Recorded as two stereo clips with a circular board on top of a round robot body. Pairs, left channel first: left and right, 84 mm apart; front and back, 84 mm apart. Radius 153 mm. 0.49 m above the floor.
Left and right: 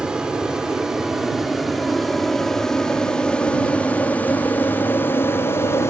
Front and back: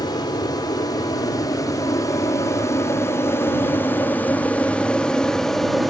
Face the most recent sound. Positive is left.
turn(degrees=90)